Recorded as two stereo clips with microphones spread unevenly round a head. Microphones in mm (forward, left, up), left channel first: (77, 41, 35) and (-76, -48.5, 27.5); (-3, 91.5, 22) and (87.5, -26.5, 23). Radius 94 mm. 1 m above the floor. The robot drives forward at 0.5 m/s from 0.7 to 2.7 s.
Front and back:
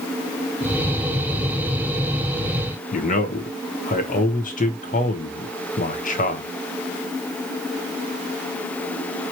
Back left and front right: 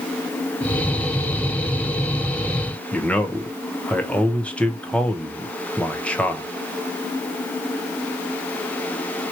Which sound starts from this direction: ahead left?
A man speaking, at 2.9 s.